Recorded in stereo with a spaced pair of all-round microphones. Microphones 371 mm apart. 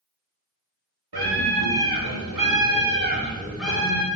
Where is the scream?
85° right, 1.4 m; by 4.1 s 15° left (ahead or behind), 0.9 m.